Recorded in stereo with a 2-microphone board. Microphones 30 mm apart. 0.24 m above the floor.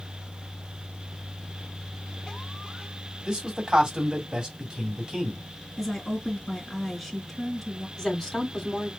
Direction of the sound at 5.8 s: Centre (ahead or behind).